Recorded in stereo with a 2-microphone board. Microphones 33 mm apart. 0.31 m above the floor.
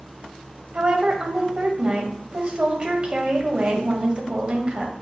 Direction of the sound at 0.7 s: 35° right (ahead or behind).